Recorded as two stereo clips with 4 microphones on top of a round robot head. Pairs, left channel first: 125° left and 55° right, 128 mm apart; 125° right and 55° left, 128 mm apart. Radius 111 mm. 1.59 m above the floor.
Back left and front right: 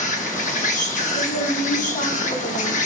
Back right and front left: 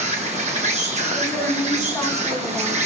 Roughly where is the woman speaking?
Behind.